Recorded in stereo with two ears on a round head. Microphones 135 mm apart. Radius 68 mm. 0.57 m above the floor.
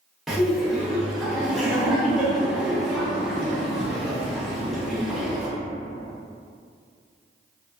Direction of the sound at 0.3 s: Centre (ahead or behind).